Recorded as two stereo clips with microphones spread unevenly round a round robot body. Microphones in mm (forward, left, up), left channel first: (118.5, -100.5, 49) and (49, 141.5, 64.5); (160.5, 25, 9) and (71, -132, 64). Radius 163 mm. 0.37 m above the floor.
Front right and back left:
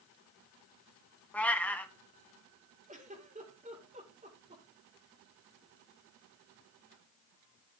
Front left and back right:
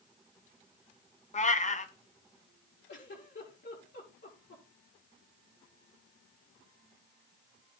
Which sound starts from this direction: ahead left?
A giggle, at 2.9 s.